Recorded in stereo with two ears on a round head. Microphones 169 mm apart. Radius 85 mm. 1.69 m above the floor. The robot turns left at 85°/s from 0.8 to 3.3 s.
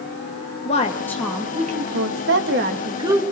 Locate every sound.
0.7 s a woman speaking: 35° left, 2 m; by 3.2 s 170° right, 2 m